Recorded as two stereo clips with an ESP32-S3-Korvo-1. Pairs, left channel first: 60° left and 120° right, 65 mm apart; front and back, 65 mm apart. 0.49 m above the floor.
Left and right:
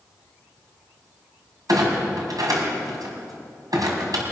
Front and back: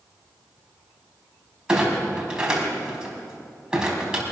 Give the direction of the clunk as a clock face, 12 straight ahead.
3 o'clock.